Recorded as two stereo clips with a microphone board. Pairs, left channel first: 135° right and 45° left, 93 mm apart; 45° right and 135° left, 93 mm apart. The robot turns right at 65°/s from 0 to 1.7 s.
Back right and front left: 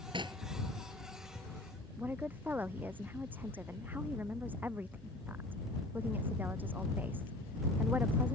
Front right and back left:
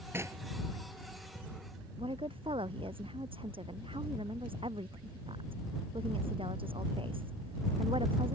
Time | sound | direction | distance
0.1 | knocking | 70° left | ?
2.0 | a woman speaking | 115° left | ?